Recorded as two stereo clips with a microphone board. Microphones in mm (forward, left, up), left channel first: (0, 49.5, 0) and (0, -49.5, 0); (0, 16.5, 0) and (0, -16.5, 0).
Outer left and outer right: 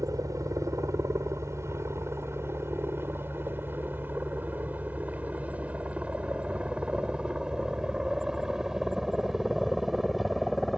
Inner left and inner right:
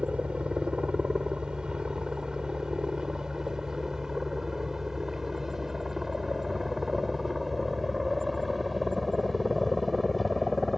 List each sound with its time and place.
0.0 s a helicopter: 35° right (ahead or behind); by 10.8 s centre (ahead or behind)